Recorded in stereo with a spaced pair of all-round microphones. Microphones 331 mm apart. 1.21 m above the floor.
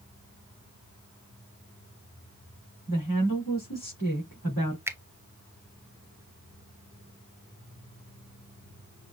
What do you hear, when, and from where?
2.9 s a woman speaking: 70° left (ahead or behind), 3.5 m
4.9 s a finger snap: 5° right (ahead or behind), 0.6 m